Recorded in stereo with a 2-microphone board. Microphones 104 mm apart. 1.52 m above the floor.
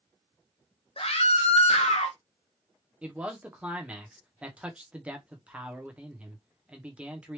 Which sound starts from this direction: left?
A scream, at 1.0 s.